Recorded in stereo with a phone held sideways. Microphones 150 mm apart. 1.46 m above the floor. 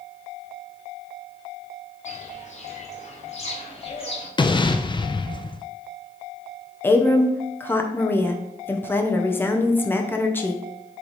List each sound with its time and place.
2.0 s footsteps: 55° left (ahead or behind), 2.5 m; by 4.3 s 35° left (ahead or behind), 2 m
4.4 s an explosion: 30° left (ahead or behind), 0.5 m
6.8 s a woman speaking: 15° left (ahead or behind), 0.9 m